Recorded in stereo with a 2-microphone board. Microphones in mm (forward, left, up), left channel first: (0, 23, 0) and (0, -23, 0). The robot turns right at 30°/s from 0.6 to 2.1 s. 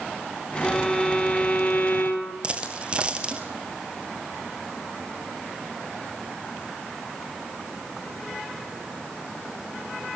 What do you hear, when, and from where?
0.6 s a violin: straight ahead, 4 m; by 2.3 s 45° left, 4 m
2.4 s a dropped coin: 25° right (ahead or behind), 2 m